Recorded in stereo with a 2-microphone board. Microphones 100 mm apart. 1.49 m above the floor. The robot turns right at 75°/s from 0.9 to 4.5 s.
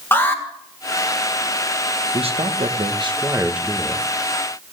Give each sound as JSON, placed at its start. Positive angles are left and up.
{"t": 0.1, "sound": "an alarm", "side_deg": 25, "distance_m": 1.9}
{"t": 2.1, "sound": "a man speaking", "azimuth_deg": -120, "distance_m": 1.3}